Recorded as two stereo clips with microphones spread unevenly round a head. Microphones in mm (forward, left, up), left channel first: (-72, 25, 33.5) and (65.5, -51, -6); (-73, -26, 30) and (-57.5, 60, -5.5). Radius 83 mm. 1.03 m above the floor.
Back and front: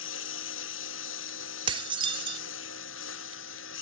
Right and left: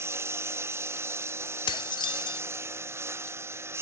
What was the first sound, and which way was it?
A lawn mower, 140° left.